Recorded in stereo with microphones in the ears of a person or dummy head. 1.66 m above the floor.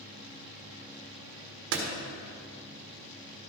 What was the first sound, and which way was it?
A door slam, 70° right (ahead or behind).